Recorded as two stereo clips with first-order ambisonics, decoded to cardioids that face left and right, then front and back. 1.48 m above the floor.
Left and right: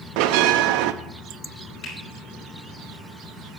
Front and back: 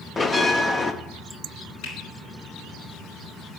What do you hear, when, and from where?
0.2 s a bell: 75° right, 0.5 m
1.8 s a finger snap: 40° left, 5 m